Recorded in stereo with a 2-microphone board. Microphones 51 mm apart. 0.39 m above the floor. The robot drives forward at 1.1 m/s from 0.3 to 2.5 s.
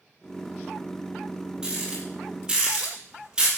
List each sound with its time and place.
1.6 s a rattle: 15° right (ahead or behind), 7.5 m